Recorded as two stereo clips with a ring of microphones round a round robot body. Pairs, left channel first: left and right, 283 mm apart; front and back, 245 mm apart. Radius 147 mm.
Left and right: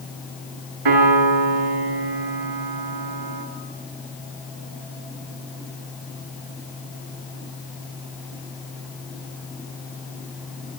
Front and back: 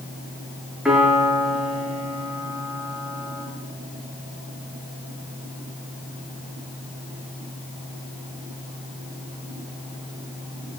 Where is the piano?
90° right, 7.5 m.